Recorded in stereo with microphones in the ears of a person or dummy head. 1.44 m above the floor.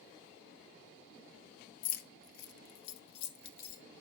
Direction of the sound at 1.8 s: 50° left (ahead or behind).